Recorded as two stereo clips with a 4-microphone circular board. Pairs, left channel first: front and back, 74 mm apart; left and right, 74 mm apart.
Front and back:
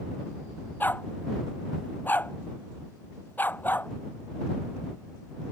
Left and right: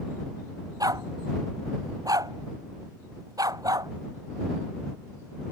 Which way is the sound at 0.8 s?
65° right.